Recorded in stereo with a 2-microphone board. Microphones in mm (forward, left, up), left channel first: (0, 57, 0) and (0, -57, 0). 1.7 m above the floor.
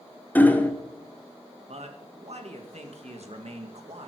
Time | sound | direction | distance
0.3 | hammering | 15° left (ahead or behind) | 1.1 m
1.7 | a man speaking | 65° right (ahead or behind) | 1.9 m